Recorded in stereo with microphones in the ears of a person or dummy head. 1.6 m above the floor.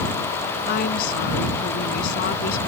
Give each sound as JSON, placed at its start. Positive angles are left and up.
{"t": 0.7, "sound": "a woman speaking", "side_deg": 50}